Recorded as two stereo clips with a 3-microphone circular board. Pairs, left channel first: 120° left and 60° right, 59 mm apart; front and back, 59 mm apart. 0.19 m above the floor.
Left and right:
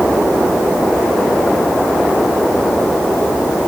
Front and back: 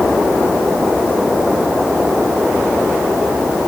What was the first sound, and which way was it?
Only background noise.